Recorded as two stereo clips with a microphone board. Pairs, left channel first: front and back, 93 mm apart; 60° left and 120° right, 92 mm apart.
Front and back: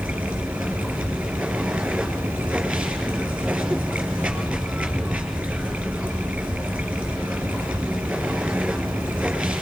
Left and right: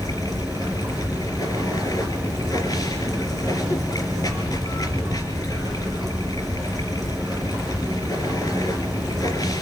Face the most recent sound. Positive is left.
turn(degrees=100)